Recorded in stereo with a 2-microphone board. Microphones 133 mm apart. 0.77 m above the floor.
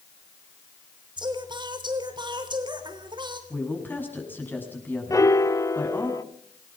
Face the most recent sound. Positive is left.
turn(degrees=25)  # may be behind; listen again after turning